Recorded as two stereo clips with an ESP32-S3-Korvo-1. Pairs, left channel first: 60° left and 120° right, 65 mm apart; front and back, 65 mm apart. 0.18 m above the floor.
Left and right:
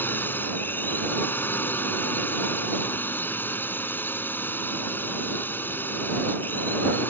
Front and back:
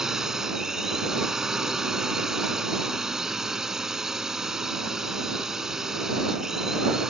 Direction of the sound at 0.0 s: 100° left.